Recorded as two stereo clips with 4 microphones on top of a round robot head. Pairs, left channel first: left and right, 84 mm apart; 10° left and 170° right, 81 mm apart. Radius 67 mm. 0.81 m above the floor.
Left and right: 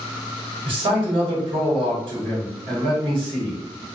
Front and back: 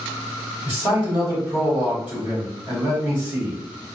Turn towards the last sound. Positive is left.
turn(degrees=-100)